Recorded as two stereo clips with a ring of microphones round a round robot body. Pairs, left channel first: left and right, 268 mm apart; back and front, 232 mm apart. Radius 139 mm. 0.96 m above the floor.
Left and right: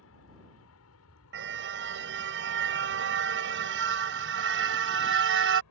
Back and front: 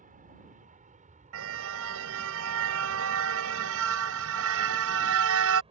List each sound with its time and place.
0.0 s an aircraft: 55° left; by 5.7 s 65° left
1.3 s a car horn: 40° right